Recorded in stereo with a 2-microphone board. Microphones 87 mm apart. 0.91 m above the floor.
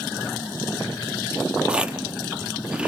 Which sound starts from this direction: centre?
Chewing, at 1.7 s.